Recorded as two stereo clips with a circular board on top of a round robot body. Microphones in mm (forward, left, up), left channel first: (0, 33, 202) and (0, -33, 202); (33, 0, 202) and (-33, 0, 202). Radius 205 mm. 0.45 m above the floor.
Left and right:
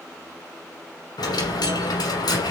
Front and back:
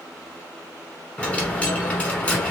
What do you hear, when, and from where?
1.2 s a dropped coin: 75° left, 1.0 m